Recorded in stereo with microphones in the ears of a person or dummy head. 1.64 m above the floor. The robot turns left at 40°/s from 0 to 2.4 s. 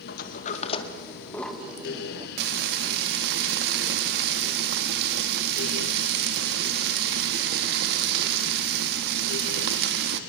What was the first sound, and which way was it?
A sliding door, 60° left (ahead or behind).